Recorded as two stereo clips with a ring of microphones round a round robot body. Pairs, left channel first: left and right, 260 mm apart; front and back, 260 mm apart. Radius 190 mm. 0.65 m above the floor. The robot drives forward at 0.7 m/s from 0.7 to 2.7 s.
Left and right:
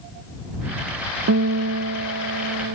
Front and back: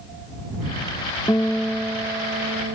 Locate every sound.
1.3 s a guitar: 80° right; by 2.8 s 120° right